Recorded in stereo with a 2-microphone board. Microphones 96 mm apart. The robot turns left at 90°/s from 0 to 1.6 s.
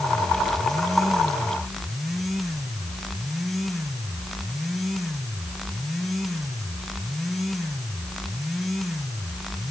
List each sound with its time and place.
Only background noise.